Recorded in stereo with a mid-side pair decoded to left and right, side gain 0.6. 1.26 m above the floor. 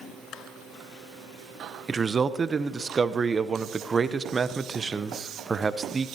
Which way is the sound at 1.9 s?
25° right.